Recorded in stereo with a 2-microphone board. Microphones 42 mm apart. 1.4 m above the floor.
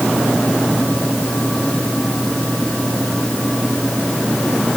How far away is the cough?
I don't hear a cough.